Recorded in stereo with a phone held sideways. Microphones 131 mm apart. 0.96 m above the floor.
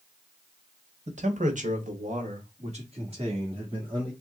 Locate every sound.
1.1 s a man speaking: 60° right (ahead or behind), 1.1 m; by 4.1 s 40° right (ahead or behind), 2 m